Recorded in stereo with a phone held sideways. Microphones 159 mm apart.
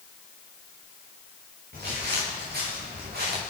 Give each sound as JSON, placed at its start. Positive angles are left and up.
{"t": 1.7, "sound": "footsteps", "side_deg": -85, "distance_m": 6.0}